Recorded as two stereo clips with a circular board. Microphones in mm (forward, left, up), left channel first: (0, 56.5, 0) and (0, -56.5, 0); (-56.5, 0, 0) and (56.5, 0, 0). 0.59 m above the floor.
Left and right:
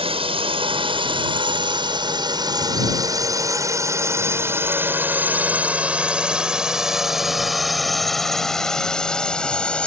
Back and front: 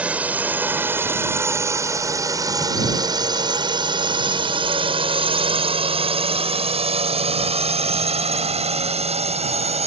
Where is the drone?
75° right; by 9.9 s 10° left.